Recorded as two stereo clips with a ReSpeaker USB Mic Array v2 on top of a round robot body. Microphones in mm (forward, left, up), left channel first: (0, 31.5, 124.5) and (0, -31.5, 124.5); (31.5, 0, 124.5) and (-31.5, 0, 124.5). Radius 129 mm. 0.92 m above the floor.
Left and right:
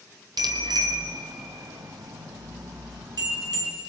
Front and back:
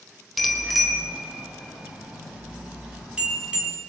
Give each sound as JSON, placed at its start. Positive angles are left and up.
{"t": 0.4, "sound": "a bicycle bell", "azimuth_deg": -90, "distance_m": 3.0}